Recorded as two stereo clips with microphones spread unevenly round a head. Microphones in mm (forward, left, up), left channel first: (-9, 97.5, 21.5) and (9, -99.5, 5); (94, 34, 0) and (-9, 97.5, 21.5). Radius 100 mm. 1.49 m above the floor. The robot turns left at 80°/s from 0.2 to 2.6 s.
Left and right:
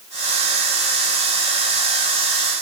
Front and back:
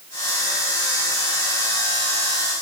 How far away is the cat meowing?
No cat meowing in this recording.